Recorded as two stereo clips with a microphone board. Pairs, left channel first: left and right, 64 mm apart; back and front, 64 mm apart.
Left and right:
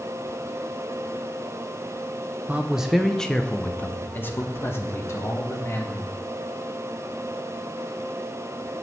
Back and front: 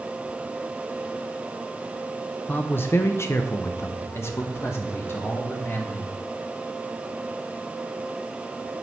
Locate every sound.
2.5 s a man speaking: 140° right, 0.7 m; by 6.1 s 130° left, 2 m